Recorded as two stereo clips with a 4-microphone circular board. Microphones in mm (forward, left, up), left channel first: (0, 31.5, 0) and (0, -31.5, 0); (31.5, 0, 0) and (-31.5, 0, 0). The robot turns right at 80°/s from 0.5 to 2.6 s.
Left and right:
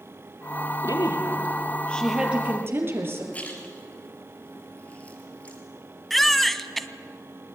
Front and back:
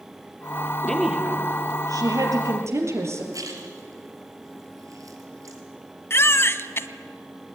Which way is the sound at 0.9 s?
80° left.